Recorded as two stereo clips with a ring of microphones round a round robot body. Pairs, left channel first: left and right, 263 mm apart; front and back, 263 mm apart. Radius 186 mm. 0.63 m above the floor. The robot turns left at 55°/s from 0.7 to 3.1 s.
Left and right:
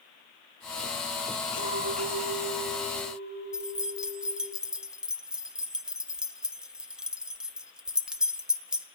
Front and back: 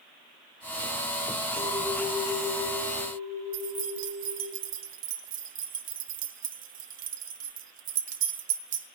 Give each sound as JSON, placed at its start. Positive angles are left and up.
{"t": 1.6, "sound": "a clink", "azimuth_deg": 85, "distance_m": 8.0}
{"t": 3.5, "sound": "keys jangling", "azimuth_deg": -175, "distance_m": 0.6}